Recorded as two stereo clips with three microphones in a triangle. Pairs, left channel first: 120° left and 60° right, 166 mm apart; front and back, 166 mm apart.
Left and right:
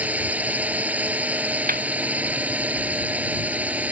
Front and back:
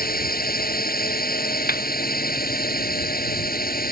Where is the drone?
20° left.